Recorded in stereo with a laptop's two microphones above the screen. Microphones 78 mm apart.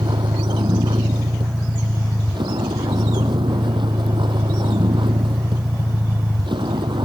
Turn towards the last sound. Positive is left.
turn(degrees=-85)